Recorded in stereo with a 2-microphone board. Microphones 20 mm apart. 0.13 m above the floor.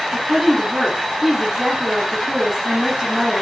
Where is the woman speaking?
25° right (ahead or behind), 5.5 m.